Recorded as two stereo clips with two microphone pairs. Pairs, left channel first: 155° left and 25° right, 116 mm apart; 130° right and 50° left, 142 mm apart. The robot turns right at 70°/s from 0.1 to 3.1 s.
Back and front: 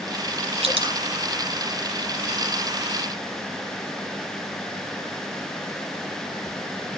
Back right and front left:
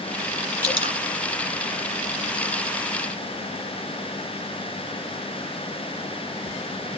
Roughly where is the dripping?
Ahead.